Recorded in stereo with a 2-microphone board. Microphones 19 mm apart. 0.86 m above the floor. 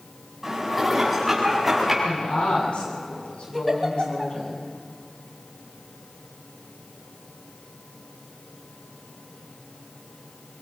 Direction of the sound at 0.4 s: 10° right (ahead or behind).